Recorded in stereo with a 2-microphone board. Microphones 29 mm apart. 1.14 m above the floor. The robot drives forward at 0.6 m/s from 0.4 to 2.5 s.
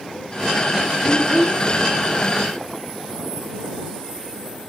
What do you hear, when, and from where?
1.0 s a child speaking: 50° left (ahead or behind), 6.5 m; by 1.6 s 45° left (ahead or behind), 6.5 m